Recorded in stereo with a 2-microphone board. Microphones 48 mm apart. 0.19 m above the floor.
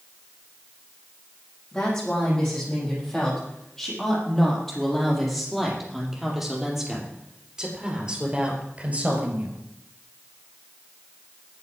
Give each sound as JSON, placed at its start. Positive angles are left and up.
{"t": 1.7, "sound": "a woman speaking", "side_deg": 15, "distance_m": 7.5}